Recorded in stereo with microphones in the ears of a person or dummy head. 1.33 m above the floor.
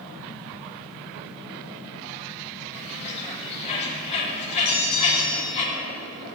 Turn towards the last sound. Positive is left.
turn(degrees=50)  # may be behind; listen again after turning